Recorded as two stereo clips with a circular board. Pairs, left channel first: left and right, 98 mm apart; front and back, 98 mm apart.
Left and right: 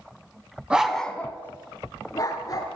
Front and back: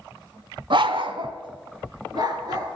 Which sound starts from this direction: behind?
A dog barking, at 0.7 s.